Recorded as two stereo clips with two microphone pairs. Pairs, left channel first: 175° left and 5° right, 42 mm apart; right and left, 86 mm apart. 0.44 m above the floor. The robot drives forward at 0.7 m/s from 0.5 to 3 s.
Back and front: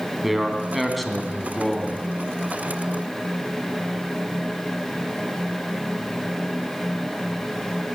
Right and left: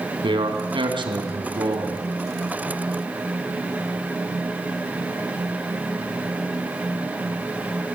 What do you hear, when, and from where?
0.2 s a man speaking: 80° left, 3 m; by 2.0 s 100° left, 3 m